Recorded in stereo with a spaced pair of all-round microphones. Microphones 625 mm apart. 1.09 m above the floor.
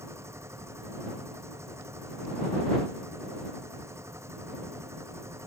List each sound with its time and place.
0.0 s a machine running: 5° right (ahead or behind)